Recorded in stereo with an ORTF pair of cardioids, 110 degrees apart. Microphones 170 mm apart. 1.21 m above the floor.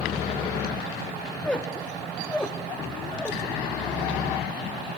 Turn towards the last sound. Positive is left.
turn(degrees=5)